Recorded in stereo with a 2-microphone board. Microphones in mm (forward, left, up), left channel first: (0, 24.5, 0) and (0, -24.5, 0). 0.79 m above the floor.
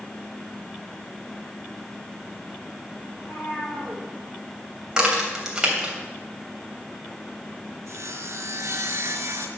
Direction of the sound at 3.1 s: 25° left (ahead or behind).